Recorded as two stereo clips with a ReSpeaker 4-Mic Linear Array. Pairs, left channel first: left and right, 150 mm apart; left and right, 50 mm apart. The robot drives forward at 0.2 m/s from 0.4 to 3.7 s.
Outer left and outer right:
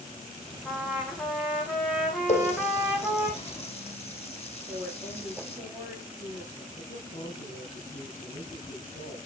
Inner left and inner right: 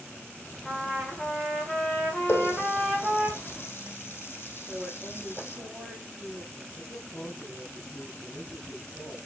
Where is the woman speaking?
5° right (ahead or behind), 6.5 m.